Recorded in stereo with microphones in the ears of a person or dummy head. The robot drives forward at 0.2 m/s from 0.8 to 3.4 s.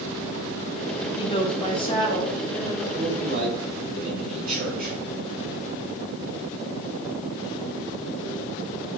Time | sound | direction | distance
1.2 | a woman speaking | 30° left (ahead or behind) | 0.7 m
2.9 | a man speaking | 45° right (ahead or behind) | 2 m